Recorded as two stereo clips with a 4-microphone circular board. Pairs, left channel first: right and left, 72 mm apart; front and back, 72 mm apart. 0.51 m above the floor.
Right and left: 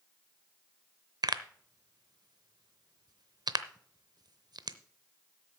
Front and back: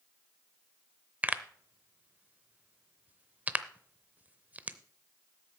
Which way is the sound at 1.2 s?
110° left.